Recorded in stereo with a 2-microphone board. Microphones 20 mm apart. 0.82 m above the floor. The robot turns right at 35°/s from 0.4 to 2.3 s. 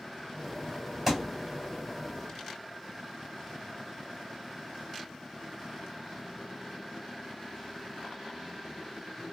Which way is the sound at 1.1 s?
20° right (ahead or behind).